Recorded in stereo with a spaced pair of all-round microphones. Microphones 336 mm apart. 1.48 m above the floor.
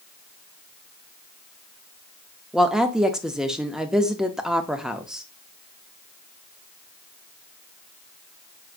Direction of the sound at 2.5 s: Centre (ahead or behind).